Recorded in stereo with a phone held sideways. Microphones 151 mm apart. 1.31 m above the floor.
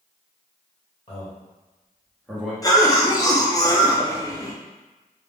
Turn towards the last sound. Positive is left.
turn(degrees=25)  # may be behind; listen again after turning